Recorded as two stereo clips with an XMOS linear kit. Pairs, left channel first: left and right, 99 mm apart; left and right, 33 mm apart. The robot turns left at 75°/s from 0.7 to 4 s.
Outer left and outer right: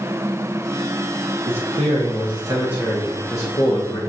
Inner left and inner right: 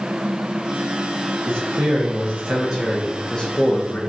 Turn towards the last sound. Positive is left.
turn(degrees=105)